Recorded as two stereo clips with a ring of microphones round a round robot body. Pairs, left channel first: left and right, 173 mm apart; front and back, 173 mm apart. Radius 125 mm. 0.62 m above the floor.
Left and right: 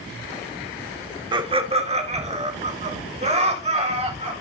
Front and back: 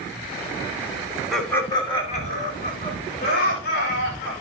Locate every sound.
1.3 s laughter: 95° right, 1.2 m; by 4.3 s 40° right, 5 m